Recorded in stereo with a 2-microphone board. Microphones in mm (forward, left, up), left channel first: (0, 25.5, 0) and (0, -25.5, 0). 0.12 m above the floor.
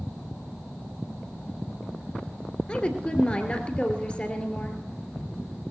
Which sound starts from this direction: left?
A woman speaking, at 2.7 s.